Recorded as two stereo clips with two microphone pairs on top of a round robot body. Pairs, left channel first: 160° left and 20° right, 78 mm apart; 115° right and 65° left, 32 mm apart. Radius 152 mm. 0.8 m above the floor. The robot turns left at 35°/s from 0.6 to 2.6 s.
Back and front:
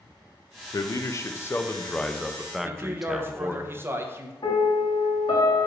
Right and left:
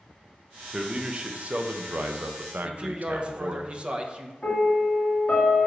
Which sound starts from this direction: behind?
A piano, at 4.4 s.